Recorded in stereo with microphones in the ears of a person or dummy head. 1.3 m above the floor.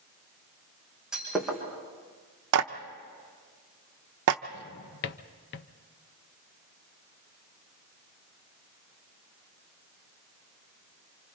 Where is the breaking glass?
Centre (ahead or behind), 4.5 m.